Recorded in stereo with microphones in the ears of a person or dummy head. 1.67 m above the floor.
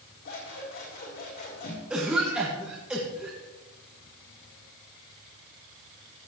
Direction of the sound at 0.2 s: 50° left (ahead or behind).